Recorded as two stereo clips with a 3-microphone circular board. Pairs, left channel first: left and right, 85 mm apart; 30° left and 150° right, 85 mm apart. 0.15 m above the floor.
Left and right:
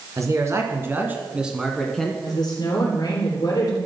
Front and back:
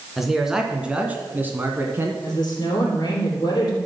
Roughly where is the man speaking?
Ahead right.